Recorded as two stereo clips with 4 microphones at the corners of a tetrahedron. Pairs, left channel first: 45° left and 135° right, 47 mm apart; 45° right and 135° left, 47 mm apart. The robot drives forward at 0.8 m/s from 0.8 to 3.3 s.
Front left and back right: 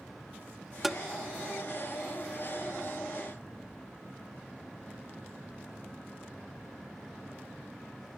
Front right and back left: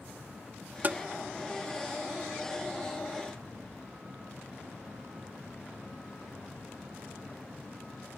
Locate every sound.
0.8 s tapping: 140° left; by 1.0 s 150° left